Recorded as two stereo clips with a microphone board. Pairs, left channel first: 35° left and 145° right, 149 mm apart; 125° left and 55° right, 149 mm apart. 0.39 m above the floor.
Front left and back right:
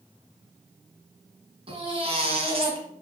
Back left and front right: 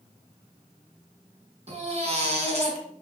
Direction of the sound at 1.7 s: 95° right.